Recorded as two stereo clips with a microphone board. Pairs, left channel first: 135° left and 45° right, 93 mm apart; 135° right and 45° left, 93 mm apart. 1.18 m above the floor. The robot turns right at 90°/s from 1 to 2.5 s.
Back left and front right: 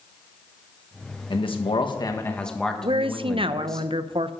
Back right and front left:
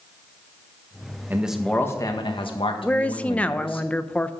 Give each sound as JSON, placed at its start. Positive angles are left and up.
{"t": 1.3, "sound": "a man speaking", "azimuth_deg": 110, "distance_m": 1.5}
{"t": 2.8, "sound": "a woman speaking", "azimuth_deg": -60, "distance_m": 0.6}